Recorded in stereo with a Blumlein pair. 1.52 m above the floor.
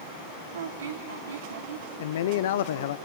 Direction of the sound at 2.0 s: 55° left.